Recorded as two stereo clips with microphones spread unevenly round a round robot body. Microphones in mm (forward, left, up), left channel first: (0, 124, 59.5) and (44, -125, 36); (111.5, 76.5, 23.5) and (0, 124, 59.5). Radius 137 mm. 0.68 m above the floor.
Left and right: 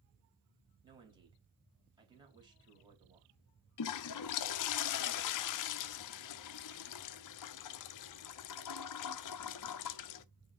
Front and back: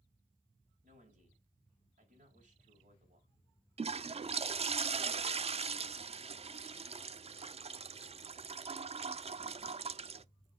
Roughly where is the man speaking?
Behind right.